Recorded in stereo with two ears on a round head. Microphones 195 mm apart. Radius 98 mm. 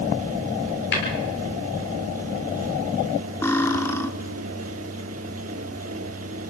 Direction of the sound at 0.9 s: 55° left (ahead or behind).